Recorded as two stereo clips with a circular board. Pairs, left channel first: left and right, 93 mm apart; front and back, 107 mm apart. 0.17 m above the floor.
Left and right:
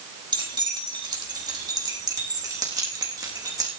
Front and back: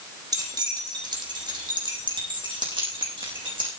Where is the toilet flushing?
No toilet flushing in this recording.